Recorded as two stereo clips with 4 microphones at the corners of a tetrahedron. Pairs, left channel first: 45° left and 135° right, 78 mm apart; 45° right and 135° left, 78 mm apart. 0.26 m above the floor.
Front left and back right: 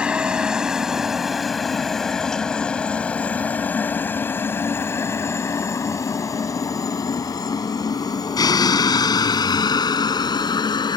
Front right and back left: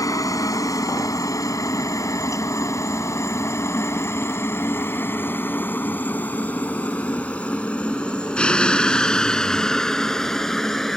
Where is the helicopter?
60° right; by 11.0 s 40° left.